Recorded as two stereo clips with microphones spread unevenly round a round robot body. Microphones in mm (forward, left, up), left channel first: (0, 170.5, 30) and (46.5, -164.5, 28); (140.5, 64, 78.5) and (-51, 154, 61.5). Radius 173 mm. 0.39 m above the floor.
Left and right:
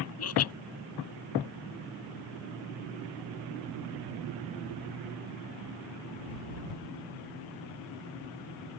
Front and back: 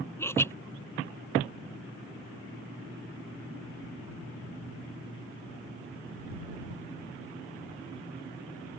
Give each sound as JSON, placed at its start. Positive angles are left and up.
{"t": 0.2, "sound": "laughter", "azimuth_deg": 55}